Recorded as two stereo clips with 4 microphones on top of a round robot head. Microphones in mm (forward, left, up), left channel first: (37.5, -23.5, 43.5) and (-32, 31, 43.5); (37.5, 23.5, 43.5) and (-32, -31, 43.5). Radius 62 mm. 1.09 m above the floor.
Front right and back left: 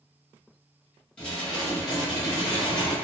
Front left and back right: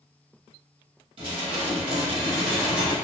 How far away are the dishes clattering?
About 1.0 m.